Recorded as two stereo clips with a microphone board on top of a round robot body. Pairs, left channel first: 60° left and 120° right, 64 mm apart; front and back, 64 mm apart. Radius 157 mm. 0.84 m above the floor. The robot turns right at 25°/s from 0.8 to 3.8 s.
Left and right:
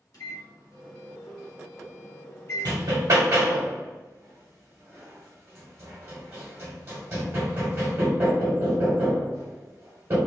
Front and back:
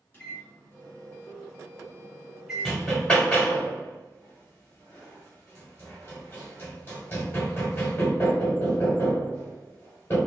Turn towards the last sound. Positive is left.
turn(degrees=-60)